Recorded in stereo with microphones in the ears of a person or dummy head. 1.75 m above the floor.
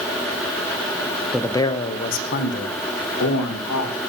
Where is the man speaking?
Centre (ahead or behind), 0.8 m; by 4.0 s 70° left (ahead or behind), 2.5 m.